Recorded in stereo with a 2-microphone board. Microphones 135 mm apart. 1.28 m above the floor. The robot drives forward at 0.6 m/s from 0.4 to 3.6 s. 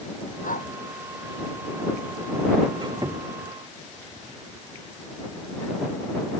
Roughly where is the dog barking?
Left.